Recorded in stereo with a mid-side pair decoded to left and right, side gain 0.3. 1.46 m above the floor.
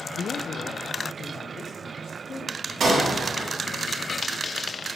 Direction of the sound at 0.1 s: 65° left.